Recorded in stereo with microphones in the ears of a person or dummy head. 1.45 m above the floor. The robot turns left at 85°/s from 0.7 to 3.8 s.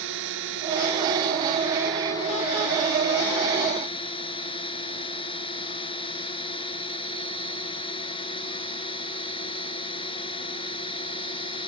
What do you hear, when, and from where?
0.0 s a drone: 75° right; by 11.7 s 25° left